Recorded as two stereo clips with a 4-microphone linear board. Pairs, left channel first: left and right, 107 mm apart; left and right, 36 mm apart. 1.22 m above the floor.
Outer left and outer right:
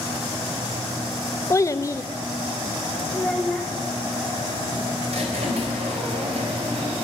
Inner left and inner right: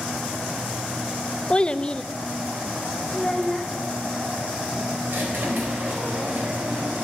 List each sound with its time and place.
1.5 s a child speaking: 30° left (ahead or behind), 0.6 m
3.1 s a child speaking: 5° left (ahead or behind), 1.3 m
5.1 s a squeak: 80° right, 4 m